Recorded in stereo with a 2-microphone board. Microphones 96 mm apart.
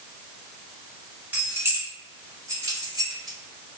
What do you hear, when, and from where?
1.3 s keys jangling: 15° right (ahead or behind), 1.3 m; by 3.8 s 40° right (ahead or behind), 1.4 m